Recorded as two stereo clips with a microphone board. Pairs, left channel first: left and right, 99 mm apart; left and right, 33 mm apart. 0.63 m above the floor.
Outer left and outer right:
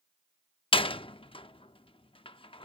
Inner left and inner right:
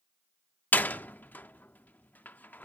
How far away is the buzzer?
I don't hear a buzzer.